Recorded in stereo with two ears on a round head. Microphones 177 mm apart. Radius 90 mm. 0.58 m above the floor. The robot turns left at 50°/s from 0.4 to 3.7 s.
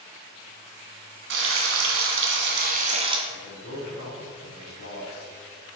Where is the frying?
60° right, 1.3 m; by 3.2 s 155° right, 1.3 m.